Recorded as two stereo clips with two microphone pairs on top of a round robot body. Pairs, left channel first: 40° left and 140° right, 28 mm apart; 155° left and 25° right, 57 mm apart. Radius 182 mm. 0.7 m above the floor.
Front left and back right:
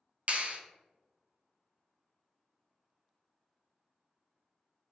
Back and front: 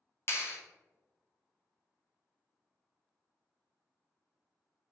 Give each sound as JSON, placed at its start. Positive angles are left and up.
{"t": 0.3, "sound": "a clap", "azimuth_deg": -170, "distance_m": 0.9}